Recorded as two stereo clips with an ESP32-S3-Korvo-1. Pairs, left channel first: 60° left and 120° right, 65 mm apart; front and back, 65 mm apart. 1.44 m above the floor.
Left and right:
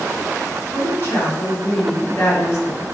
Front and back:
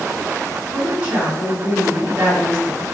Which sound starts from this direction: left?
A woman speaking, at 0.7 s.